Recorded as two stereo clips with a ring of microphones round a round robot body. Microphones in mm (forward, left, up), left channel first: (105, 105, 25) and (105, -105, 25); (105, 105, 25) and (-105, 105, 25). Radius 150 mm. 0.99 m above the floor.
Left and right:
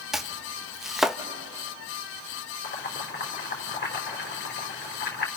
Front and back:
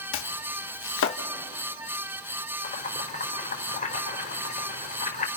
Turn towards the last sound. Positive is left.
turn(degrees=55)